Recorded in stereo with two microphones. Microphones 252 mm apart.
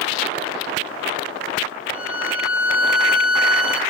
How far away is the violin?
About 1.2 m.